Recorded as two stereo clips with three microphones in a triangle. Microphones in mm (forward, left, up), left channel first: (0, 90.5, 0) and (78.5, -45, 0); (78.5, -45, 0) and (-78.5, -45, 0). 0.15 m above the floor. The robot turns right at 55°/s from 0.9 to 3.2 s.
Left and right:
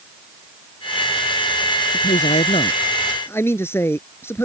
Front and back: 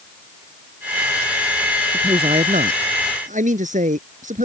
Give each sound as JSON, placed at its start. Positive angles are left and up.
{"t": 1.9, "sound": "a man speaking", "azimuth_deg": 120}